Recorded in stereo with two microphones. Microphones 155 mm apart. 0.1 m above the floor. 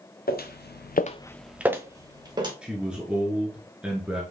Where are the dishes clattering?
No dishes clattering in this recording.